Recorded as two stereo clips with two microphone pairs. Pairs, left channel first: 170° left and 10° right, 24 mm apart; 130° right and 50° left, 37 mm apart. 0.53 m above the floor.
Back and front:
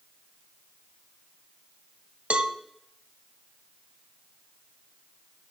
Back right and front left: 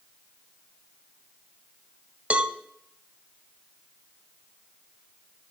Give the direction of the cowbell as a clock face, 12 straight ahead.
12 o'clock.